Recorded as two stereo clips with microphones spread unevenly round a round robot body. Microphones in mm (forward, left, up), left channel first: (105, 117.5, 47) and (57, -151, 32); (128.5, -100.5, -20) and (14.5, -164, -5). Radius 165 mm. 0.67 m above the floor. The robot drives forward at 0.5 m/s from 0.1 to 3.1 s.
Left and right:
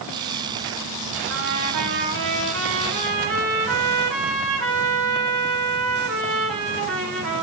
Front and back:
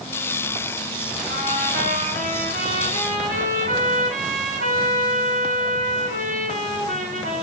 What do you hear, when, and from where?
1.3 s a trumpet: 155° right, 3.5 m; by 7.4 s 160° right, 4.5 m